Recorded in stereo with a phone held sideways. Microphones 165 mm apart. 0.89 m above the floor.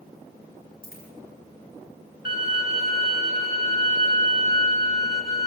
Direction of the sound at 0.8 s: 60° left (ahead or behind).